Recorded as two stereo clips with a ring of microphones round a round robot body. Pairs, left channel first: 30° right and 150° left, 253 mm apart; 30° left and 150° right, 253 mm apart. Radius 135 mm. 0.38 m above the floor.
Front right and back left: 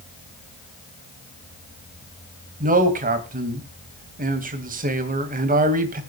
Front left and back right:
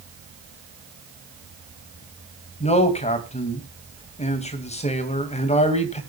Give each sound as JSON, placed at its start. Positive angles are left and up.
{"t": 2.6, "sound": "a man speaking", "azimuth_deg": 95, "distance_m": 2.5}